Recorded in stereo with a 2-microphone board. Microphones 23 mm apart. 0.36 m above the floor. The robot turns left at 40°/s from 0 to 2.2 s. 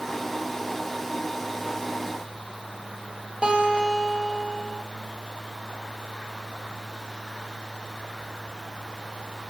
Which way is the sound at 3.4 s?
45° right (ahead or behind).